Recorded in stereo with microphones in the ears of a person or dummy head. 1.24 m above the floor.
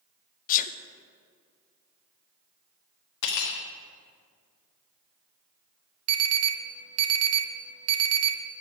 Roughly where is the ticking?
No ticking in this recording.